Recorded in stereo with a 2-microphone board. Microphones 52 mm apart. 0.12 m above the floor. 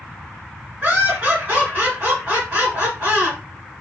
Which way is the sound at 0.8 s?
25° right (ahead or behind).